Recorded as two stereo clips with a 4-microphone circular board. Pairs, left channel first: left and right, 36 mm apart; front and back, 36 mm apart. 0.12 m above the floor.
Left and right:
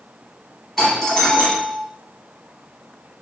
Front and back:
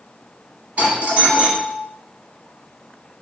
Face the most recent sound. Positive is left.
turn(degrees=175)